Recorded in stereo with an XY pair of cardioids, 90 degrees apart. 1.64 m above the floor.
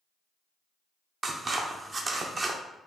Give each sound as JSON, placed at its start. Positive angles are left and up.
{"t": 1.2, "sound": "scissors", "azimuth_deg": -40, "distance_m": 0.6}